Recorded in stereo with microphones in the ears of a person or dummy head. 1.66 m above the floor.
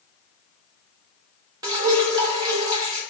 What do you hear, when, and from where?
1.6 s dripping: 15° right (ahead or behind), 0.9 m